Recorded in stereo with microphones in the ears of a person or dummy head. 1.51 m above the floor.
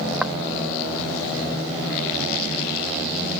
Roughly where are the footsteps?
Centre.